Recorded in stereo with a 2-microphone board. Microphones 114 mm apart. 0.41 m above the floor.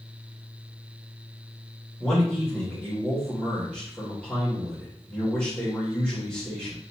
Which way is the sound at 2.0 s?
10° left (ahead or behind).